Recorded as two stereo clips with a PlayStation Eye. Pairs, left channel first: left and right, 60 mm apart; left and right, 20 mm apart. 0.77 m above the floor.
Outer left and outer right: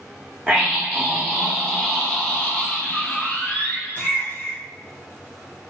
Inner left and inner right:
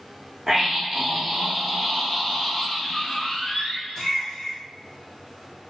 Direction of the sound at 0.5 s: 10° right (ahead or behind).